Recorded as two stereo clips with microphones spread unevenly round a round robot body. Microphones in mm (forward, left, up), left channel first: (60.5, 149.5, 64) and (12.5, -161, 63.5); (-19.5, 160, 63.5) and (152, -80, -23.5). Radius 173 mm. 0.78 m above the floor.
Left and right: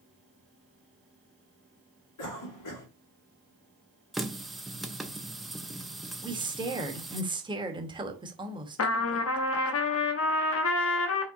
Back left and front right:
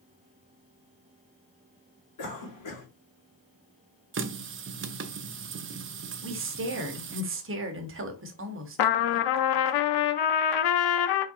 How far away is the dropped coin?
I don't hear a dropped coin.